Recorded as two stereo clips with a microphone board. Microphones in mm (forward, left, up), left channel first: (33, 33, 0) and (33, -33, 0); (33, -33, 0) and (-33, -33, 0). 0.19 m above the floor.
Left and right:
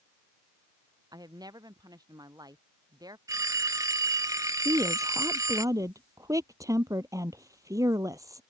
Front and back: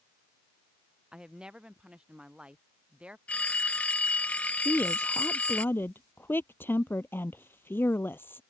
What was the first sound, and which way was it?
A woman speaking, 105° right.